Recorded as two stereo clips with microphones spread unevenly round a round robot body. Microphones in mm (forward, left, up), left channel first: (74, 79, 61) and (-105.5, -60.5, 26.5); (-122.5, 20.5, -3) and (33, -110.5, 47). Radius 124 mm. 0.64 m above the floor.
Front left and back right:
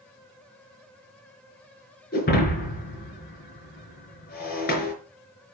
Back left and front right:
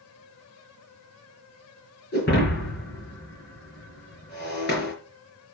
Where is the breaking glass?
90° left, 5 m.